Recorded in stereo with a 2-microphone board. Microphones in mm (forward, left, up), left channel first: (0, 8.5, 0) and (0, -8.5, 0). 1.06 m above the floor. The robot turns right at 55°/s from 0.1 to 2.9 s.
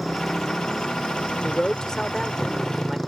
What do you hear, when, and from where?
0.0 s a motorcycle: 10° left; by 3.1 s 165° left
1.4 s a man speaking: 120° left; by 3.0 s 160° right